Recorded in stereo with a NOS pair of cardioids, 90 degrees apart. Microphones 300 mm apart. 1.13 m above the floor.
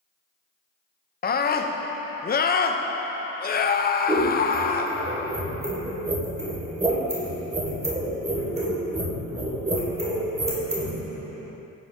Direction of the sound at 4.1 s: 20° right.